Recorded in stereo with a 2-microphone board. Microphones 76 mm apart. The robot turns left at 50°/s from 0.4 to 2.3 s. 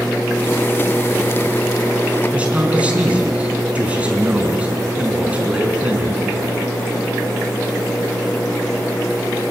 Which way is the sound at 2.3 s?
15° right (ahead or behind).